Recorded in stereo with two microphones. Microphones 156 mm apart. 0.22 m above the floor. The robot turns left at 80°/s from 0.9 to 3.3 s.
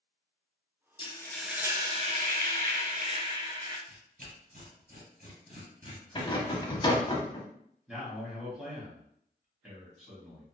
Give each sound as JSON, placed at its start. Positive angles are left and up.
{"t": 1.0, "sound": "frying", "azimuth_deg": 35, "distance_m": 0.6}
{"t": 3.9, "sound": "tearing paper", "side_deg": -65, "distance_m": 2.0}
{"t": 6.2, "sound": "a rattle", "side_deg": 30, "distance_m": 0.6}
{"t": 7.9, "sound": "a man speaking", "side_deg": -5, "distance_m": 1.5}